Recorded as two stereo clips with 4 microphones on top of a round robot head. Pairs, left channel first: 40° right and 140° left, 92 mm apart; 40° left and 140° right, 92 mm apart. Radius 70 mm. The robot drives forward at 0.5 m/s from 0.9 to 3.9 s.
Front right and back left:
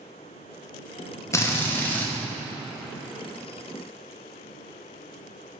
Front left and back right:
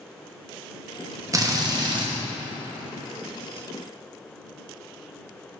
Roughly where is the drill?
Right.